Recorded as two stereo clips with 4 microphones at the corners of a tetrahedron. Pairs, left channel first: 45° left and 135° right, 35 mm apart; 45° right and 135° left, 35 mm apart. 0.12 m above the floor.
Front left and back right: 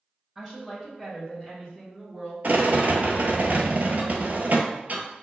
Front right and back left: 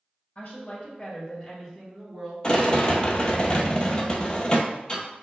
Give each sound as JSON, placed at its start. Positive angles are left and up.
{"t": 0.3, "sound": "a woman speaking", "azimuth_deg": -45, "distance_m": 1.5}
{"t": 2.4, "sound": "a rattle", "azimuth_deg": -105, "distance_m": 0.6}